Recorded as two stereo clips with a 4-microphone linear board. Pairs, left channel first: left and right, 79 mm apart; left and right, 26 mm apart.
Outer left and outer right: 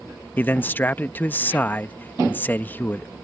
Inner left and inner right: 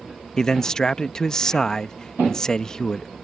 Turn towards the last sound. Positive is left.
turn(degrees=25)  # may be behind; listen again after turning